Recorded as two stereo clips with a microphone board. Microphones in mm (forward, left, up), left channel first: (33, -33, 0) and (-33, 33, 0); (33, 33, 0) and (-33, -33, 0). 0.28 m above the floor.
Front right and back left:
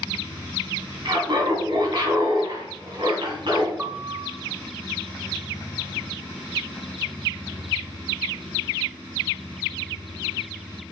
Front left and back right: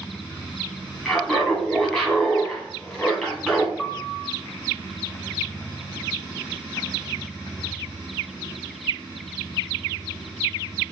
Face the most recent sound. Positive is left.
turn(degrees=115)